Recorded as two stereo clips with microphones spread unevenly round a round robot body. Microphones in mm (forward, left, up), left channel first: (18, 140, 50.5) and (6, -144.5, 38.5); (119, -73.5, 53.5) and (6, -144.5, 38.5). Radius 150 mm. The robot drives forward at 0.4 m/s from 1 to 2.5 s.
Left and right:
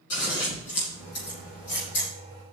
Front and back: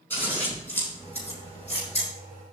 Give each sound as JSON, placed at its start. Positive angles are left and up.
{"t": 0.1, "sound": "scissors", "azimuth_deg": 115, "distance_m": 7.5}